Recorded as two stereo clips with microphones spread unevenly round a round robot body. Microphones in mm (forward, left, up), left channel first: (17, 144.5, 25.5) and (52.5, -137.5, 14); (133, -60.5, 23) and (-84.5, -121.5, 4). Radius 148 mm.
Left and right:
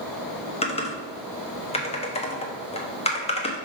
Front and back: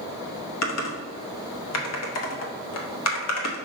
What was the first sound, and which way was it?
Typing on a keyboard, 25° left.